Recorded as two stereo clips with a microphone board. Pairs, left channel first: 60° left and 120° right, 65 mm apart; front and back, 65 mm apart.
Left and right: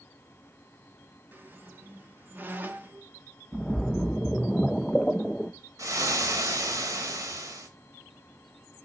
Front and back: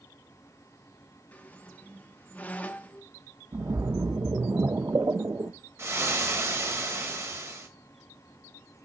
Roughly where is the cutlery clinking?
I don't hear cutlery clinking.